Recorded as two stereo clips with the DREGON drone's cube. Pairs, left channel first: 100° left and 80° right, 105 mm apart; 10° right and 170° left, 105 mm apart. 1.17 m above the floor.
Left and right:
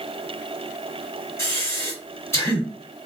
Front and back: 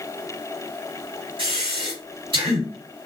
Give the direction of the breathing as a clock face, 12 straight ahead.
7 o'clock.